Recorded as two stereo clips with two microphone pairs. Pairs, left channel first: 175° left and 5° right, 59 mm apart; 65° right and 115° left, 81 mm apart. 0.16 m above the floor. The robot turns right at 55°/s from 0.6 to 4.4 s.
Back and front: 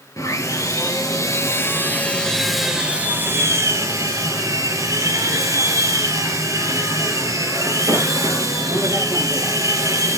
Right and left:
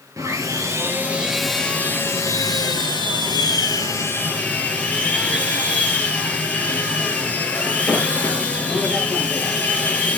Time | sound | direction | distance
0.2 | sawing | 160° left | 3.5 m